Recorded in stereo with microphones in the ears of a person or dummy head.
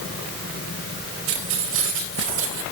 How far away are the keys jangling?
About 4.5 m.